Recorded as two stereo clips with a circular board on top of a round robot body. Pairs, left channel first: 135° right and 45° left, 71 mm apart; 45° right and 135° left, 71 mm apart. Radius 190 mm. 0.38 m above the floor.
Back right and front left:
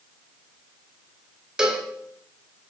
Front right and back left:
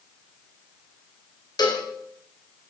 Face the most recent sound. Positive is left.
turn(degrees=-35)